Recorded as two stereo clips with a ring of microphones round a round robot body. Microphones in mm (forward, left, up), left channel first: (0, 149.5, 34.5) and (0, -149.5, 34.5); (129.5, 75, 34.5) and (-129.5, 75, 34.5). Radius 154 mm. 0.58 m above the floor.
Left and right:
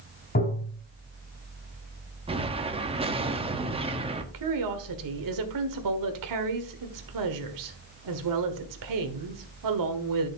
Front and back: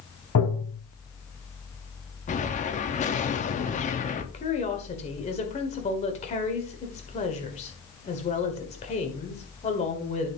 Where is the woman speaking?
70° right, 1.7 m.